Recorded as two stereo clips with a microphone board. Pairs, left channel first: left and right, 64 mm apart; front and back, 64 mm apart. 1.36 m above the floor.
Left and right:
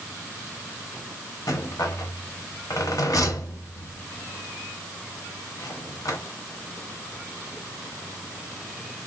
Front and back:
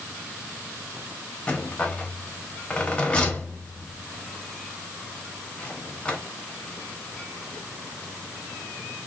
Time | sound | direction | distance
1.5 | a rattle | 75° left | 0.7 m